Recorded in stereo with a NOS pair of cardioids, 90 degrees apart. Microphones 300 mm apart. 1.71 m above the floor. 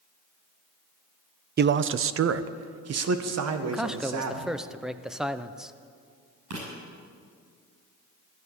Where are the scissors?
No scissors in this recording.